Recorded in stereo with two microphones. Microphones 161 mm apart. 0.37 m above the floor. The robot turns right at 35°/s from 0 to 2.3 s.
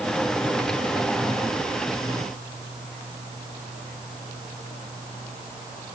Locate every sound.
Only background noise.